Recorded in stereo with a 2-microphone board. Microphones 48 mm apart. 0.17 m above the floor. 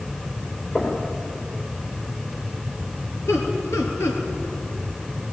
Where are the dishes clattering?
I don't hear dishes clattering.